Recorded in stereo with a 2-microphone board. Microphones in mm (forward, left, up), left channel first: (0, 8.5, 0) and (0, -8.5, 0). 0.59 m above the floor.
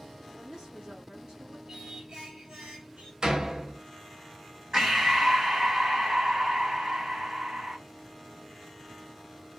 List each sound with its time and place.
0.3 s a woman speaking: 55° right (ahead or behind), 1.5 m
1.7 s singing: 55° right (ahead or behind), 1.1 m
3.2 s a door slam: 45° right (ahead or behind), 0.6 m
4.7 s breathing: 40° right (ahead or behind), 1.1 m